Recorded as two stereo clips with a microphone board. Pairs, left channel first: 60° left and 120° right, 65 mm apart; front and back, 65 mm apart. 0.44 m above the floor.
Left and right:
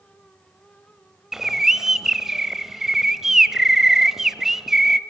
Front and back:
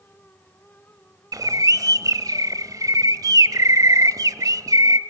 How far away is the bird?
About 0.6 m.